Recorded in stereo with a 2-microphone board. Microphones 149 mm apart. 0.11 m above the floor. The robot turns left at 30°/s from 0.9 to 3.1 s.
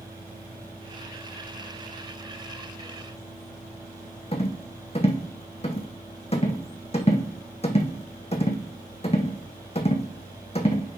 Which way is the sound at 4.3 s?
45° left (ahead or behind).